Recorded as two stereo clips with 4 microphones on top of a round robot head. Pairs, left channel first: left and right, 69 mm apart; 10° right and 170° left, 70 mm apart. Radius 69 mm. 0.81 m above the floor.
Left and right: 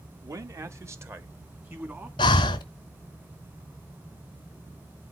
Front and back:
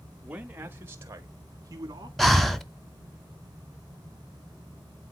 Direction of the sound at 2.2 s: 80° left.